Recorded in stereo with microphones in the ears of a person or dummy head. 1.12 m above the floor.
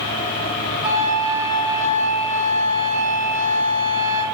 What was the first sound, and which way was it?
A flute, 15° right (ahead or behind).